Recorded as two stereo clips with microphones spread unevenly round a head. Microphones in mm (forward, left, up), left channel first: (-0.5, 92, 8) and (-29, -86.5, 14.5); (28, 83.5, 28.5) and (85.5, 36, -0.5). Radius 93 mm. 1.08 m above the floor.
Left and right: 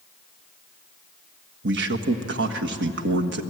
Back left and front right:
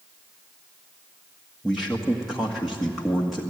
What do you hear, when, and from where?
1.6 s a man speaking: 120° right, 1.7 m